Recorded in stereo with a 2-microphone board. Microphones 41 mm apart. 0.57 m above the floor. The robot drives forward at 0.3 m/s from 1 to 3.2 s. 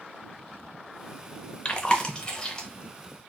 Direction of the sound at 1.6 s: 25° left (ahead or behind).